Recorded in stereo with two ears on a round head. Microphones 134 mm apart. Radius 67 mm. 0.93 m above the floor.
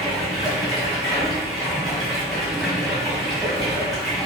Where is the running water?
Centre (ahead or behind), 1.6 m.